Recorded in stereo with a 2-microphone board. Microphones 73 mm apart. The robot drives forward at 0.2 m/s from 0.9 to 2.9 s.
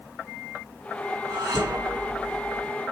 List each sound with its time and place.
1.3 s dishes clattering: 75° right (ahead or behind), 6 m